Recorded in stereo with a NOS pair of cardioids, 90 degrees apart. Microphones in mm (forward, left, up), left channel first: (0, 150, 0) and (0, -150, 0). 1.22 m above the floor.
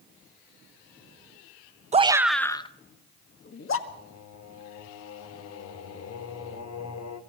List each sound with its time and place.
1.9 s a shout: 20° right, 1.0 m; by 3.8 s 45° left, 2.0 m
3.9 s singing: 55° left, 2 m